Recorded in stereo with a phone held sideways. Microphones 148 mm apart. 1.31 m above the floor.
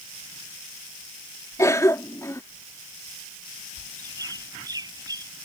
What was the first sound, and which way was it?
A cough, 20° left (ahead or behind).